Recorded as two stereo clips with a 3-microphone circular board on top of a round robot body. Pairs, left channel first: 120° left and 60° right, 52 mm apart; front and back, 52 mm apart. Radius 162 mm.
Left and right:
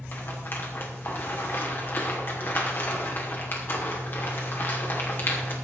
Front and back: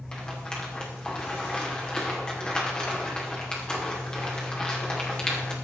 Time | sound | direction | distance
0.1 | a rattle | 75° left | 2.5 m